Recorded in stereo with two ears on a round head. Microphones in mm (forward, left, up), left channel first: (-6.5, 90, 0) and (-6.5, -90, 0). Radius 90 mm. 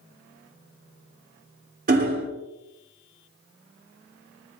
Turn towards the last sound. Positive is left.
turn(degrees=-45)  # may be behind; listen again after turning